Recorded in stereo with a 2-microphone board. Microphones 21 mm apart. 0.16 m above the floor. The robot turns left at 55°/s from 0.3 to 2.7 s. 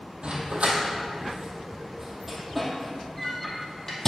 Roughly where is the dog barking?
Right.